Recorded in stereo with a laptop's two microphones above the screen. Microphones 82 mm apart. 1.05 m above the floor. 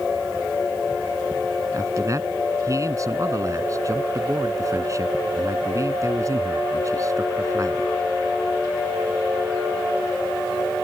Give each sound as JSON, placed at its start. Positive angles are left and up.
{"t": 1.7, "sound": "a man speaking", "side_deg": -40}